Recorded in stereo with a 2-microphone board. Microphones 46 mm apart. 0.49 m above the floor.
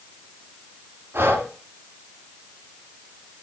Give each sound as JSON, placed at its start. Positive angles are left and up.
{"t": 1.1, "sound": "breathing", "side_deg": -65, "distance_m": 1.9}